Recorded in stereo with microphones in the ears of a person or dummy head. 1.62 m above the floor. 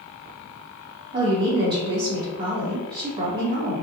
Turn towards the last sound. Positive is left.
turn(degrees=-30)  # may be behind; listen again after turning